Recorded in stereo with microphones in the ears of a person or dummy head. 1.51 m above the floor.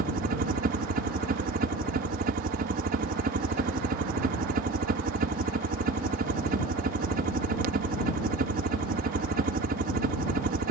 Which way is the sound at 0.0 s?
50° right (ahead or behind).